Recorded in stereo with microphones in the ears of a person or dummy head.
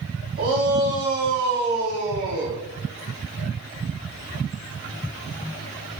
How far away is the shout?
About 3.5 m.